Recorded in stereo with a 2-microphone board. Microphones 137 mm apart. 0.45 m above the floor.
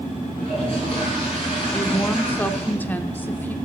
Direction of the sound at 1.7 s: 15° left (ahead or behind).